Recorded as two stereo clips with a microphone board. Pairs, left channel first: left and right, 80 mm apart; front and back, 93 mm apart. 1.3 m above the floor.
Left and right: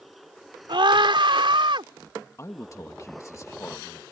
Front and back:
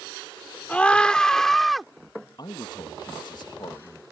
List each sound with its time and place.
0.7 s a scream: 75° right; by 1.9 s 90° right
2.4 s a man speaking: 35° left